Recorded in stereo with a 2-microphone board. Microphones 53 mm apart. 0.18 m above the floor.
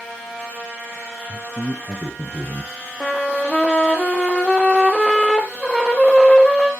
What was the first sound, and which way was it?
A man speaking, 20° right (ahead or behind).